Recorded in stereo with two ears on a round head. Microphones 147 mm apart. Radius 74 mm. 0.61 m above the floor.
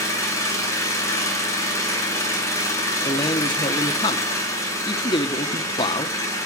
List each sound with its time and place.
0.0 s an engine running: 20° left (ahead or behind), 7 m
3.0 s a man speaking: 30° left (ahead or behind), 1.3 m